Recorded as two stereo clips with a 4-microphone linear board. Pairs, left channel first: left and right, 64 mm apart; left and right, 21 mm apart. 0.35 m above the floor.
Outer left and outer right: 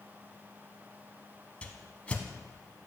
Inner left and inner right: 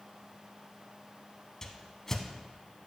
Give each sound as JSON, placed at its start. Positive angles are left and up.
{"t": 1.6, "sound": "a whoosh", "side_deg": 20, "distance_m": 0.6}